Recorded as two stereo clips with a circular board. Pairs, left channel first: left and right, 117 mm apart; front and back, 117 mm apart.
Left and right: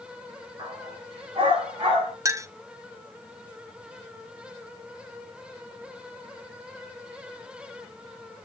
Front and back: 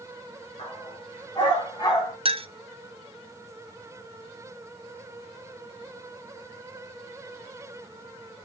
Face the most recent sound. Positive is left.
turn(degrees=-150)